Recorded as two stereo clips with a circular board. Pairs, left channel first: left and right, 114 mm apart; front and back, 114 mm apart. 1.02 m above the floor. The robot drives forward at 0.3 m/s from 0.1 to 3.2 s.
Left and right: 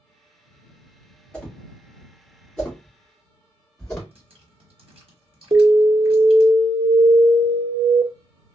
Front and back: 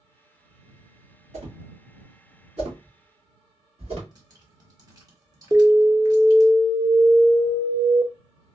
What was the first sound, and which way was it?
A whoosh, 170° left.